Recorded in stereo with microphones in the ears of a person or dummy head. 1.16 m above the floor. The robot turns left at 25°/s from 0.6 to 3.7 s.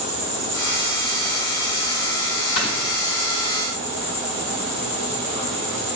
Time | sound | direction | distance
0.0 | an insect | 120° right | 1.9 m
2.6 | snoring | 55° left (ahead or behind) | 0.9 m